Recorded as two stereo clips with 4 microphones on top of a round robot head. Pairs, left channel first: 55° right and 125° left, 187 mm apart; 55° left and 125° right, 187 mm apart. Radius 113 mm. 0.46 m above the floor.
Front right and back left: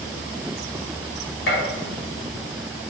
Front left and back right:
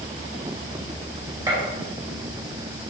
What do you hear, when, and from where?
1.5 s a gunshot: 55° right, 3 m